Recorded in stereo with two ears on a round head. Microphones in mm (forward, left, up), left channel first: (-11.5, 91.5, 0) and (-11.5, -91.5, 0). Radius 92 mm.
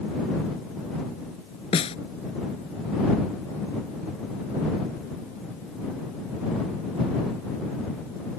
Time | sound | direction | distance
1.7 | a snare drum | 30° left (ahead or behind) | ?